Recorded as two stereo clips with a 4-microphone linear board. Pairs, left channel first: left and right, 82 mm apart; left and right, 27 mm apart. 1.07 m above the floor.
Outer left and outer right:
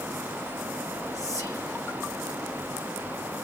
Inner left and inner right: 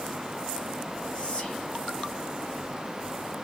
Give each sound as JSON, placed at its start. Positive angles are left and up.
{"t": 1.1, "sound": "whispering", "side_deg": 35, "distance_m": 0.7}